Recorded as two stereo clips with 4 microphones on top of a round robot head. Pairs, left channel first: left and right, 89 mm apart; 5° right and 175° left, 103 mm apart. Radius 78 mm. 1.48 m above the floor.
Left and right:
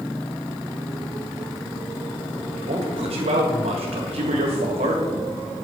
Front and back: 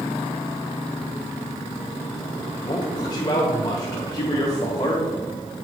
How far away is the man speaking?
About 1.2 m.